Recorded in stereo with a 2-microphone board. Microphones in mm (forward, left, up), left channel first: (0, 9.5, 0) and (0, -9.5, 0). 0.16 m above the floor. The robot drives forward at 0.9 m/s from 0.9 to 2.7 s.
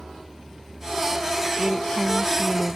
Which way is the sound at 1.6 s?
15° left (ahead or behind).